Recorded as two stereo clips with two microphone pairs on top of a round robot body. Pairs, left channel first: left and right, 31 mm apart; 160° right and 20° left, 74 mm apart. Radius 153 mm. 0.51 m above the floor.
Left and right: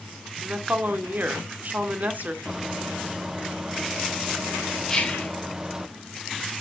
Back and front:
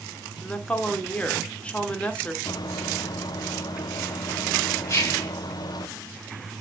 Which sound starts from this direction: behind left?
Whispering, at 4.9 s.